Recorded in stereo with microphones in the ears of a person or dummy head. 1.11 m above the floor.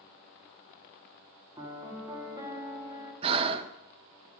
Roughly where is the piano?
Right.